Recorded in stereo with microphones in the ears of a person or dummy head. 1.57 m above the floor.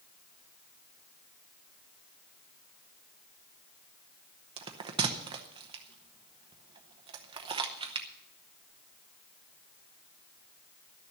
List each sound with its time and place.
4.6 s a bell: 20° right (ahead or behind), 0.9 m